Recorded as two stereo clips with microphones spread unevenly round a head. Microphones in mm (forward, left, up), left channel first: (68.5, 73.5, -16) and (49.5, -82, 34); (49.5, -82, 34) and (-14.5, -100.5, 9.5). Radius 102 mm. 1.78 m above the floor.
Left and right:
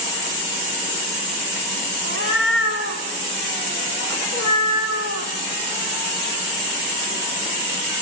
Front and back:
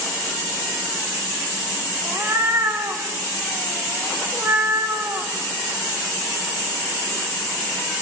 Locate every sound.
2.0 s a cat meowing: 105° left, 3.5 m